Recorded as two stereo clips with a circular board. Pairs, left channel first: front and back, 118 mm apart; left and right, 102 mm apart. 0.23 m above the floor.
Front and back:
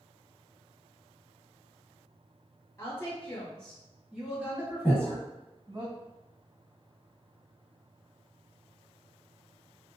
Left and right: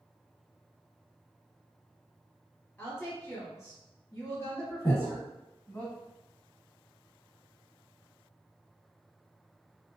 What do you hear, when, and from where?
2.8 s a woman speaking: 50° left, 1.5 m; by 5.8 s 140° left, 1.8 m
4.8 s breathing: 50° left, 1.0 m